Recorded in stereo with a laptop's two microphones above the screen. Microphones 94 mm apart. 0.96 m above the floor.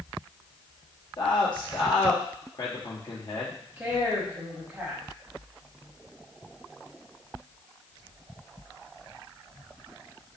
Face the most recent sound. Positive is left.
turn(degrees=-20)  # may be behind; listen again after turning